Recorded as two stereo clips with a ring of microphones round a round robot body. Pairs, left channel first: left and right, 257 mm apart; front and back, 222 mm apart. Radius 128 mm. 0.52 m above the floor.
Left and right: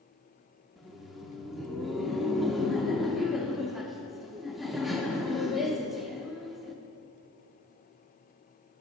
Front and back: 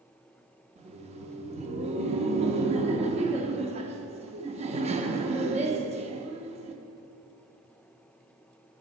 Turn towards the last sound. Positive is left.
turn(degrees=180)